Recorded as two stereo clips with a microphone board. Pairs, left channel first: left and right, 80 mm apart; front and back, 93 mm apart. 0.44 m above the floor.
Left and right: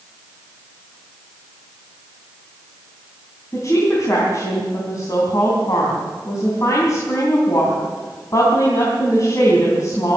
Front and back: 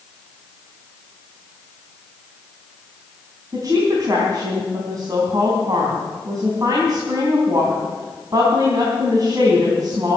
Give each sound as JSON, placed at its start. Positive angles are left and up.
{"t": 3.5, "sound": "a woman speaking", "azimuth_deg": 130, "distance_m": 4.0}